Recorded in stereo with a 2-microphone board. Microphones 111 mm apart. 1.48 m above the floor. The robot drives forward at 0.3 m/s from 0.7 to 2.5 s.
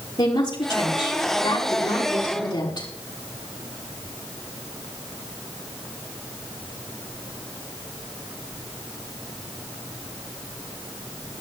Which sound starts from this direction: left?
A woman speaking, at 0.2 s.